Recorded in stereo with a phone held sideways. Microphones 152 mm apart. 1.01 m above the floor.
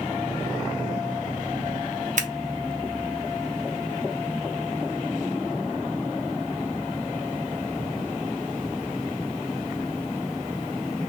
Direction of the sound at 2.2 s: 55° right (ahead or behind).